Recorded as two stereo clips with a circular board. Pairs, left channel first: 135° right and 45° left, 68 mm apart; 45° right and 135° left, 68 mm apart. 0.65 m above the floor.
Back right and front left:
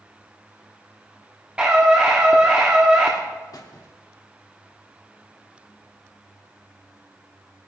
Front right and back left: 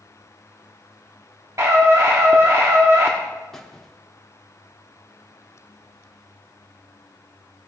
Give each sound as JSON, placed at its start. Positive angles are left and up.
{"t": 1.6, "sound": "a scream", "azimuth_deg": 115, "distance_m": 1.2}
{"t": 3.5, "sound": "a squeak", "azimuth_deg": -130, "distance_m": 1.1}